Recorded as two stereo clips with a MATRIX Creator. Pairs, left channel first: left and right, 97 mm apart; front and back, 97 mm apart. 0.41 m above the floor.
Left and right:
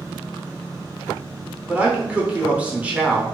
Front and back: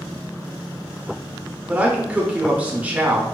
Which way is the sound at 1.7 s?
135° right.